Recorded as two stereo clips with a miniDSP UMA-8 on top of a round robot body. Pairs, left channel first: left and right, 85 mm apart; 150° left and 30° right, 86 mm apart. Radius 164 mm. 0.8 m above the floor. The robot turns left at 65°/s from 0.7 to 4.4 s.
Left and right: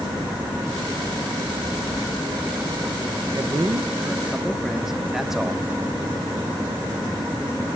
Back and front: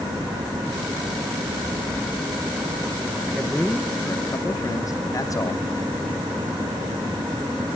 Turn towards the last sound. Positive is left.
turn(degrees=-175)